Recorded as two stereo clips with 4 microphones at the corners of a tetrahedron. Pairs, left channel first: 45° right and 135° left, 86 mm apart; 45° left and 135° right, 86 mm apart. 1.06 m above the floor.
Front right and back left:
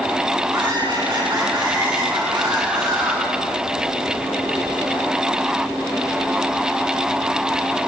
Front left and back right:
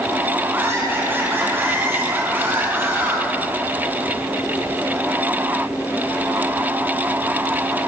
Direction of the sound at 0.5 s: 160° left.